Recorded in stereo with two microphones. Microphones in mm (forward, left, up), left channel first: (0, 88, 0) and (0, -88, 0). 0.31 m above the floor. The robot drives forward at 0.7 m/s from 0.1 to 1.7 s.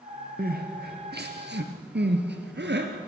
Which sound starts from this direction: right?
Crying, at 0.4 s.